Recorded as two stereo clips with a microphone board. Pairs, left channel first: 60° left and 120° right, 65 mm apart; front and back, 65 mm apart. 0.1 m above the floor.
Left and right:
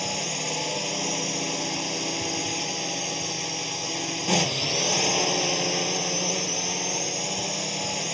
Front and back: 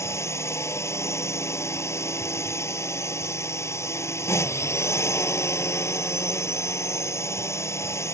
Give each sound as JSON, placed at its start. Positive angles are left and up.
{"t": 0.0, "sound": "a drone", "azimuth_deg": -30}